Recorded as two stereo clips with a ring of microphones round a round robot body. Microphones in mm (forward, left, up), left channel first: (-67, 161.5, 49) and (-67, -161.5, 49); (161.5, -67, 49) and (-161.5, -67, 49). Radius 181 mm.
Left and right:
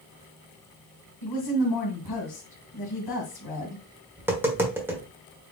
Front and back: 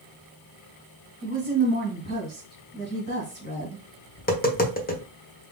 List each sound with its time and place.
1.2 s a woman speaking: 65° left, 2 m
4.2 s tapping: 15° right, 1.3 m